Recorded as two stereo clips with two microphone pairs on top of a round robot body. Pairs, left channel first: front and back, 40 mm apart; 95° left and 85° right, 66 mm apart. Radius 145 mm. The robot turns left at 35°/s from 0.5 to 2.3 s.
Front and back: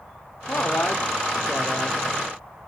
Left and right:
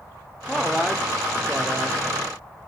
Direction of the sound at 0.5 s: 10° left.